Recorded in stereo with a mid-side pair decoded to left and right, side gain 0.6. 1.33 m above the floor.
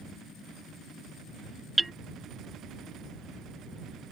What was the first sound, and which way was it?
Hammering, 10° right.